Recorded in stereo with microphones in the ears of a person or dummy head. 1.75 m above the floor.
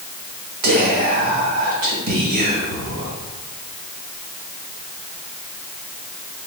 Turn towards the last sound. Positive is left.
turn(degrees=-50)  # may be behind; listen again after turning